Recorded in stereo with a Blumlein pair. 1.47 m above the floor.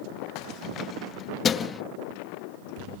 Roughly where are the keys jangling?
Ahead left.